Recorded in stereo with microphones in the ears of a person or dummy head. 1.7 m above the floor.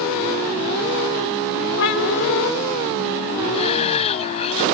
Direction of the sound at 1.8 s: 70° left (ahead or behind).